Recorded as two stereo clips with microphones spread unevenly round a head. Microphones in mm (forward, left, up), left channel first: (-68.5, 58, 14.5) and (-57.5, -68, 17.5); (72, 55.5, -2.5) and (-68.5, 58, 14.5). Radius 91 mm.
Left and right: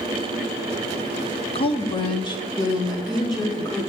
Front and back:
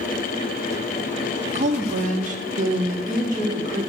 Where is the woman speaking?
135° left, 0.7 m; by 3.8 s 155° left, 3 m.